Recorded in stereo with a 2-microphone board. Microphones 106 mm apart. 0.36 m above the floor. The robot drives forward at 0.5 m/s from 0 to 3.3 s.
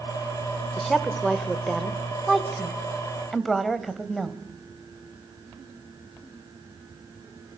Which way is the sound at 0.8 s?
Centre (ahead or behind).